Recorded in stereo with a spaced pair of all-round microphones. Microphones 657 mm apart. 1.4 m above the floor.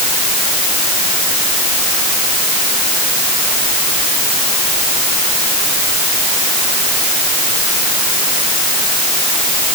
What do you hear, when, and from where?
Only background noise.